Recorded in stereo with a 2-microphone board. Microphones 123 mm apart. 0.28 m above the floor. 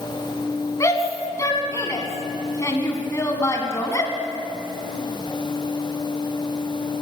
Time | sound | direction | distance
0.8 | a shout | 25° left (ahead or behind) | 2.5 m